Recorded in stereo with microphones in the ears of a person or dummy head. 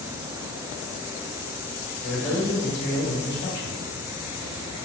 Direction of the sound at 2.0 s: 70° left (ahead or behind).